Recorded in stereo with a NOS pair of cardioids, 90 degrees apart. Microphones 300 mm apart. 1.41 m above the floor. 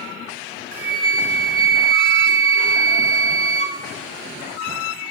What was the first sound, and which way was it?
A flute, 45° right.